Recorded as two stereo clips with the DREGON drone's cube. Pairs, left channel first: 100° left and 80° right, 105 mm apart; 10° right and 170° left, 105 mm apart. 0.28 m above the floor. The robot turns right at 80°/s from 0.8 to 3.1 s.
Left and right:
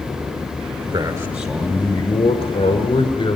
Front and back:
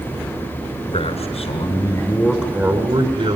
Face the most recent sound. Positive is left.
turn(degrees=140)